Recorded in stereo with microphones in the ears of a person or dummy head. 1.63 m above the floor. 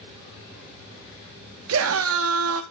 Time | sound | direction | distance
1.7 | a scream | 75° right (ahead or behind) | 0.8 m